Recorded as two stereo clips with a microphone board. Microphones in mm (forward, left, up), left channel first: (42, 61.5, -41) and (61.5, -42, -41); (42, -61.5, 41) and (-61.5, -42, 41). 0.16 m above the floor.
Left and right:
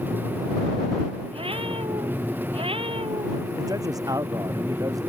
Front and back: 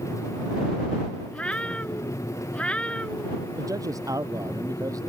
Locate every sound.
1.3 s a cat meowing: 90° right
3.6 s a man speaking: 135° right